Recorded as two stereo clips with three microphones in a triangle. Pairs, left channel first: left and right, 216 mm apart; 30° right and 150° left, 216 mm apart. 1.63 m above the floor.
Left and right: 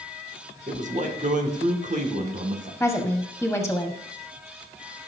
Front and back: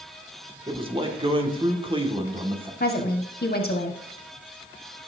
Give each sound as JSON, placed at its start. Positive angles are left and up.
{"t": 0.7, "sound": "a man speaking", "azimuth_deg": -145, "distance_m": 2.0}
{"t": 2.8, "sound": "a woman speaking", "azimuth_deg": 5, "distance_m": 1.4}